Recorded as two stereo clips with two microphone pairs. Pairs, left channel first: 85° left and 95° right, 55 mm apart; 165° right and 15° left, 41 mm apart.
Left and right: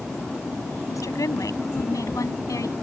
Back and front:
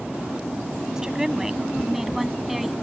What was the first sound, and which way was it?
A woman speaking, 90° left.